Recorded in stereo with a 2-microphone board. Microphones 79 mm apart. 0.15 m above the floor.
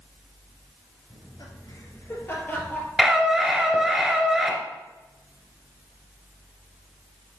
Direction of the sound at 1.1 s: 55° left (ahead or behind).